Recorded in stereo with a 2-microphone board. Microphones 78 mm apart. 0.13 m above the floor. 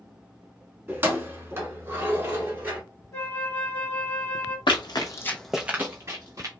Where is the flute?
30° left (ahead or behind), 1.2 m.